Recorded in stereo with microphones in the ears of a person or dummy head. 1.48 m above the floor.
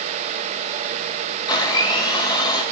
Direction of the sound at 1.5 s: 20° left (ahead or behind).